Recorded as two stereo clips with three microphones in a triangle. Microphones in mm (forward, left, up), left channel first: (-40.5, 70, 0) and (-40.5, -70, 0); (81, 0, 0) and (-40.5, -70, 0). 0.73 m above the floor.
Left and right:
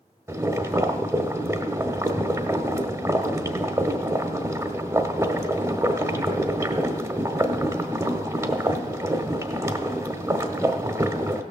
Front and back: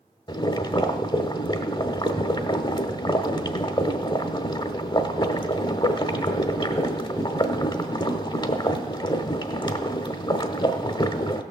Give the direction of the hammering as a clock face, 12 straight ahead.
No hammering in this recording.